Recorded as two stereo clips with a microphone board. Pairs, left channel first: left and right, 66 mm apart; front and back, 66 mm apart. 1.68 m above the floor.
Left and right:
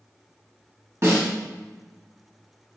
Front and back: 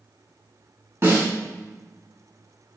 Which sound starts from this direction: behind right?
A snare drum, at 1.0 s.